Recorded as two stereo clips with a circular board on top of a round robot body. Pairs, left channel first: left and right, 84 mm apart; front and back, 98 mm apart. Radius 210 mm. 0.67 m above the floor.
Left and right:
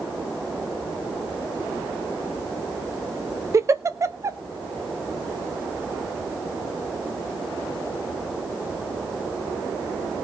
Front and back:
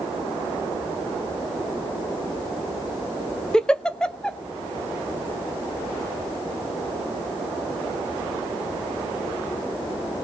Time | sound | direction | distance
3.5 | a giggle | 75° right | 1.3 m